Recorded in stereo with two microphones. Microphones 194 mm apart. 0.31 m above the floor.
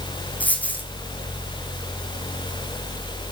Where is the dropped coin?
10° left (ahead or behind), 2.5 m.